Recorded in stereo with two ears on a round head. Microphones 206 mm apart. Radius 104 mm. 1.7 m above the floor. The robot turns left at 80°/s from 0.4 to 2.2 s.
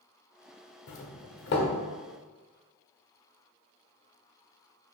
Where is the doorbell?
80° left, 0.8 m; by 1.7 s 30° left (ahead or behind), 0.8 m.